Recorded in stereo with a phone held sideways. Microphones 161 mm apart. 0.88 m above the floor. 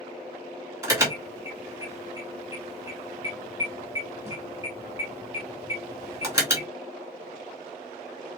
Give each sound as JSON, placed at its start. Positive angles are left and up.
{"t": 0.8, "sound": "an alarm", "side_deg": -20, "distance_m": 2.5}